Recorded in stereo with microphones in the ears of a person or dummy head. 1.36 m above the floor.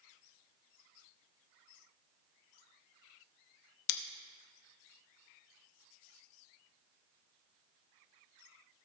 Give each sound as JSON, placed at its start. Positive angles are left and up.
{"t": 3.9, "sound": "scissors", "side_deg": 75, "distance_m": 0.8}